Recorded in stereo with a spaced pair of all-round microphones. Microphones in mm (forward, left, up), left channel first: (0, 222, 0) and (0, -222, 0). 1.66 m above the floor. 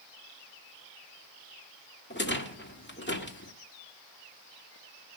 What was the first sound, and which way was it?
A rattle, 25° left (ahead or behind).